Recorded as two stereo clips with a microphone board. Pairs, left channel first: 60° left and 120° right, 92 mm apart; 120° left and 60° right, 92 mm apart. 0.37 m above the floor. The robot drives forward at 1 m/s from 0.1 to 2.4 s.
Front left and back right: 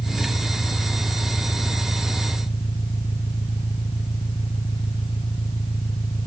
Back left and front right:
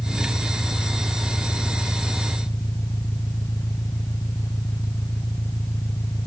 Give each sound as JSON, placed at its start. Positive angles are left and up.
{"t": 0.0, "sound": "an engine running", "azimuth_deg": 60}